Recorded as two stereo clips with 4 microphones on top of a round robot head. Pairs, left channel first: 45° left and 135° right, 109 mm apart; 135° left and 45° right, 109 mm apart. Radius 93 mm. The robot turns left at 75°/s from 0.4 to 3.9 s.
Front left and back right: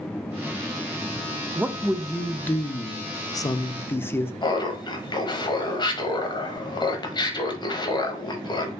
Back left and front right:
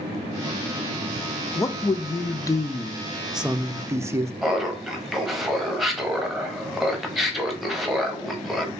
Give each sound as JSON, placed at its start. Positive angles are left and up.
{"t": 1.6, "sound": "a man speaking", "azimuth_deg": 170, "distance_m": 0.5}
{"t": 4.4, "sound": "laughter", "azimuth_deg": 45, "distance_m": 1.3}